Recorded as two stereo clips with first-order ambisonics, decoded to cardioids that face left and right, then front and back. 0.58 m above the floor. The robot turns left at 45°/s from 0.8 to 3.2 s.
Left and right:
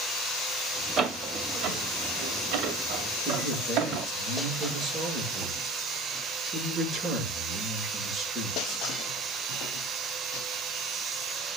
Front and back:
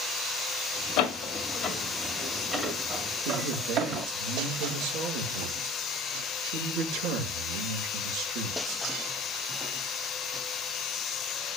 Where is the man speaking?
160° right, 7.5 m.